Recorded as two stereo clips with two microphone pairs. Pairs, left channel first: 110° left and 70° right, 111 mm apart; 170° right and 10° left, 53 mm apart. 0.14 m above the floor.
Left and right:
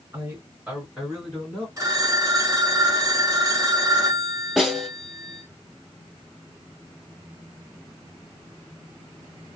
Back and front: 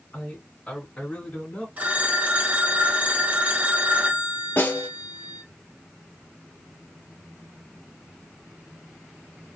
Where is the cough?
No cough in this recording.